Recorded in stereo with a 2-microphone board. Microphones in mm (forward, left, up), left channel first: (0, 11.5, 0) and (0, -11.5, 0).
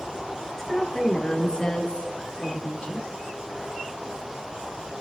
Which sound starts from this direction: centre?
A woman speaking, at 0.6 s.